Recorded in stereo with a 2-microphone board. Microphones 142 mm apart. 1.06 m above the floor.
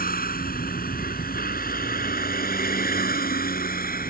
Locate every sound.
0.0 s a vehicle: 80° left; by 4.1 s 85° left